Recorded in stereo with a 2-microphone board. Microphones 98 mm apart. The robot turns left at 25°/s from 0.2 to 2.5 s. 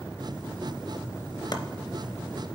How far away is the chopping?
About 0.6 m.